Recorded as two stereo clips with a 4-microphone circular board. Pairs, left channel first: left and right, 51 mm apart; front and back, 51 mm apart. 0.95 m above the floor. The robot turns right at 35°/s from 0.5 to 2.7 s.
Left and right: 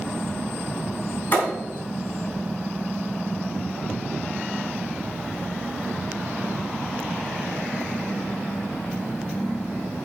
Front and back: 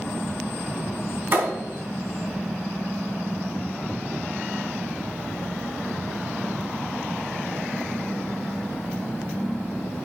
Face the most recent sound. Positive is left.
turn(degrees=-175)